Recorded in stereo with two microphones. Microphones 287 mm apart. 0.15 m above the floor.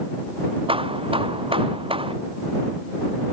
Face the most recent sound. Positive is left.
turn(degrees=-20)  # may be behind; listen again after turning